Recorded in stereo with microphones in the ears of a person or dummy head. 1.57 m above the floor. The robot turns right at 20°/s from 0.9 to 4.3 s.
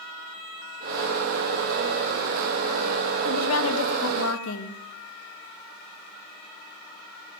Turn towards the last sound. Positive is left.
turn(degrees=70)  # may be behind; listen again after turning